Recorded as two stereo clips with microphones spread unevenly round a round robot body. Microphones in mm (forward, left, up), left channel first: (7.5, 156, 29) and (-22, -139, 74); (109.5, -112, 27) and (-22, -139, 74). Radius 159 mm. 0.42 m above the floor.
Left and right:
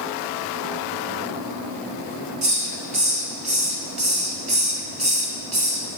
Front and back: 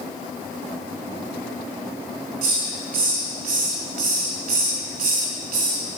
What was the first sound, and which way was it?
A hiss, 165° right.